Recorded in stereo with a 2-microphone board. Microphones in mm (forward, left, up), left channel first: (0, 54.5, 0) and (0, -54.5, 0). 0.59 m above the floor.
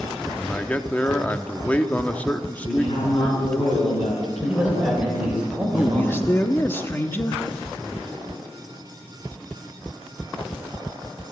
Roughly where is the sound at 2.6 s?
Left.